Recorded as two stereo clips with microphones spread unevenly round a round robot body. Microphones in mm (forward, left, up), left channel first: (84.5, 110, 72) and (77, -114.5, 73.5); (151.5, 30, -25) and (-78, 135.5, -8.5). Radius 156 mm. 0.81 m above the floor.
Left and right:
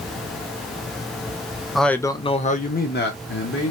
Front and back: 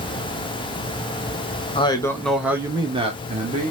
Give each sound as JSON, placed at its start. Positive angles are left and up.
{"t": 1.8, "sound": "a man speaking", "azimuth_deg": 0, "distance_m": 0.7}